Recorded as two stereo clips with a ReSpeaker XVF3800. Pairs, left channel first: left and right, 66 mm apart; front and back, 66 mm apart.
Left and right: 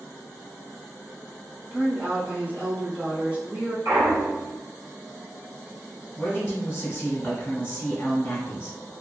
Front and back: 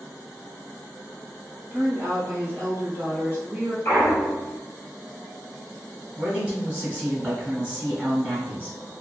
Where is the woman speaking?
135° right, 1.2 m.